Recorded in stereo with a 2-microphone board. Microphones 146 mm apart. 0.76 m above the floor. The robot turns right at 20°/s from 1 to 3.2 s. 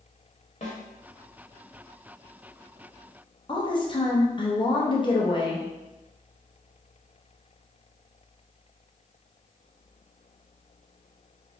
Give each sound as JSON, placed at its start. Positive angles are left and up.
{"t": 0.6, "sound": "a snare drum", "side_deg": 50, "distance_m": 1.1}
{"t": 3.5, "sound": "a woman speaking", "side_deg": 35, "distance_m": 0.7}